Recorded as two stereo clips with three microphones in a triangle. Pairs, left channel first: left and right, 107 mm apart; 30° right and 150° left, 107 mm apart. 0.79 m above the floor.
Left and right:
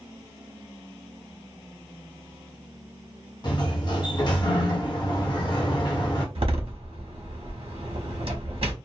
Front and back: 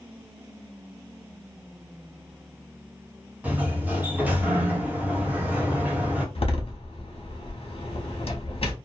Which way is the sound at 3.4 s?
80° left.